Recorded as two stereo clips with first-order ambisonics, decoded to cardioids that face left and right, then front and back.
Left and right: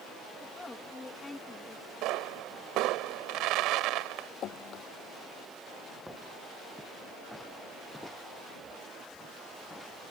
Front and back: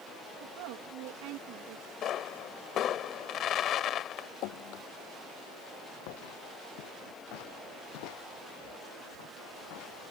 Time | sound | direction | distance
0.4 | a woman speaking | 170° left | ?
2.0 | a pop | 55° right | ?
4.4 | dripping | 35° left | ?
6.1 | footsteps | 5° right | ?